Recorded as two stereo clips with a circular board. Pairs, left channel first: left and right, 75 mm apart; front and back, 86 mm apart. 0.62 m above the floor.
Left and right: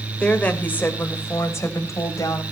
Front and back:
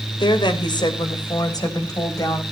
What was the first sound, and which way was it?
A woman speaking, 15° left.